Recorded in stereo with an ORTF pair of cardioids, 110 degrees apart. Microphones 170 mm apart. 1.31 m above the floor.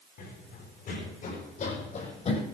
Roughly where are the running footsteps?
Ahead left.